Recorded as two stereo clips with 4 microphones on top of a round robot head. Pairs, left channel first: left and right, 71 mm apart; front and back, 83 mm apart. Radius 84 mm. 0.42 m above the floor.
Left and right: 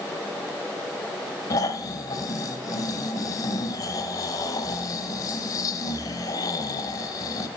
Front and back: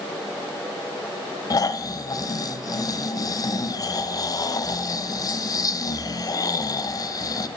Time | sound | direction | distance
1.5 | snoring | 45° left | 0.7 m